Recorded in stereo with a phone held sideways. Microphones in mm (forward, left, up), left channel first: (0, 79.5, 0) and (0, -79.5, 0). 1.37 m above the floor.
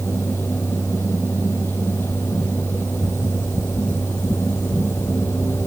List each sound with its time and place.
0.0 s a fan: 15° left (ahead or behind)